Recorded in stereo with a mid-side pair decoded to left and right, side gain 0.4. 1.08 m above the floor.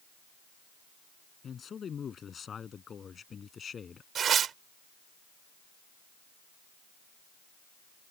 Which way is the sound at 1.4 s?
55° left.